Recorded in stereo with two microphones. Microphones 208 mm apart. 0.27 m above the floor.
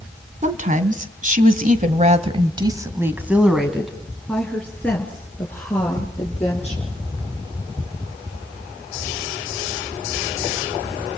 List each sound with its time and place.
0.4 s a woman speaking: 35° right (ahead or behind), 2.5 m; by 6.9 s 10° left (ahead or behind), 5.5 m